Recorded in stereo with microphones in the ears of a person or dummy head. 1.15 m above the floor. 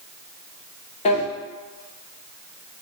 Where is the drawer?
30° left (ahead or behind), 0.8 m.